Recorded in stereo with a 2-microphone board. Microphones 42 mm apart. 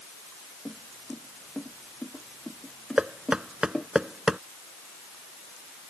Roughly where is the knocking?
Centre.